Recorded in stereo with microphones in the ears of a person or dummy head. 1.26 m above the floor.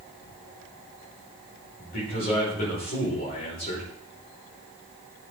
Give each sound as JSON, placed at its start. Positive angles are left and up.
{"t": 1.8, "sound": "a man speaking", "side_deg": 45, "distance_m": 5.5}